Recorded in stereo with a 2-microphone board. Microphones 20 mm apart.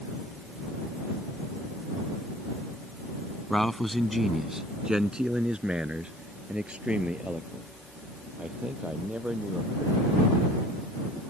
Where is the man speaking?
20° left (ahead or behind); by 10.6 s 70° right (ahead or behind).